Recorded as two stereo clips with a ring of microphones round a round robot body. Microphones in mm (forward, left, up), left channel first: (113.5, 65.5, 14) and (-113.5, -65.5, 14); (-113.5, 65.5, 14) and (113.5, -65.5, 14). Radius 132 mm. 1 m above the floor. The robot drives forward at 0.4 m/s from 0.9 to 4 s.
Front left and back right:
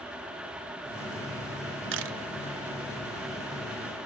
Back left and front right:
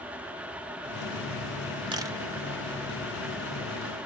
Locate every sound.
1.9 s a camera shutter: 105° right, 0.7 m; by 2.2 s 110° right, 0.8 m